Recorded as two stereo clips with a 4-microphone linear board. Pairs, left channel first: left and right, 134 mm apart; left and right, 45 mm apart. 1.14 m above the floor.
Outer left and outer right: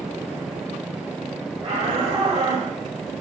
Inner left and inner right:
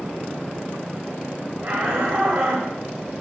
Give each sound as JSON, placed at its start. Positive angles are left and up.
{"t": 1.6, "sound": "a shout", "side_deg": -60, "distance_m": 5.5}